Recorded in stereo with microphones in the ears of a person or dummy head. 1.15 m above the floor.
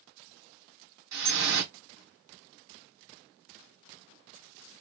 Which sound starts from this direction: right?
Dripping, at 1.1 s.